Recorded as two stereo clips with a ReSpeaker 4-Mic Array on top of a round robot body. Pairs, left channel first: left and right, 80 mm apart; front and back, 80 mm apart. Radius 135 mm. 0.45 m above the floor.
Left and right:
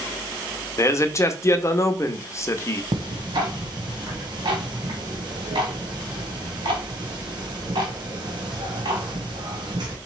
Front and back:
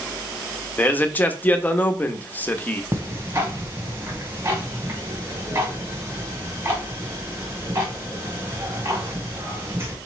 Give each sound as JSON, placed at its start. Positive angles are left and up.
{"t": 0.8, "sound": "a man speaking", "azimuth_deg": 60, "distance_m": 0.9}
{"t": 2.9, "sound": "ticking", "azimuth_deg": -120, "distance_m": 1.2}